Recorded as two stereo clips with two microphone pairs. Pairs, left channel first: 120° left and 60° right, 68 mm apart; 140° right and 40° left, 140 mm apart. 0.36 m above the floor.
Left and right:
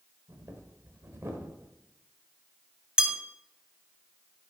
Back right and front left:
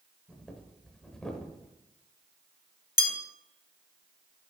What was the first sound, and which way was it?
Breathing, 55° right.